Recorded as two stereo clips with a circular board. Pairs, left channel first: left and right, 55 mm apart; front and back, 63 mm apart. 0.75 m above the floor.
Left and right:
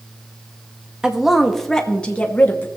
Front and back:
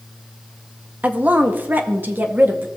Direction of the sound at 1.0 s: 150° right.